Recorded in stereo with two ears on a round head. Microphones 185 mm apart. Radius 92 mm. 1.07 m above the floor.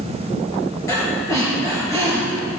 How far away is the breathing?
About 5 m.